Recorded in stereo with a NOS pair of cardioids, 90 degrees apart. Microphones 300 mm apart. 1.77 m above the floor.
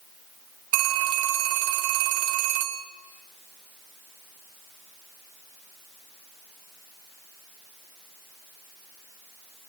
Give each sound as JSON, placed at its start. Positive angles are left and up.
{"t": 0.7, "sound": "a phone ringing", "azimuth_deg": -70, "distance_m": 3.0}